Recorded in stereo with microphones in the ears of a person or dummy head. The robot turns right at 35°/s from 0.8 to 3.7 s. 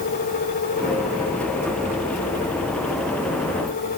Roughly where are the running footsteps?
No running footsteps in this recording.